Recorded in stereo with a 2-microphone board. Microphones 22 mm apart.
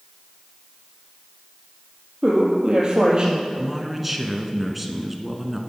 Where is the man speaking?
5° right (ahead or behind), 1.4 m.